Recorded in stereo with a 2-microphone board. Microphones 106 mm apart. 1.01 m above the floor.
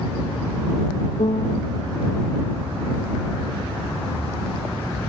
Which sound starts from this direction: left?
A piano, at 1.2 s.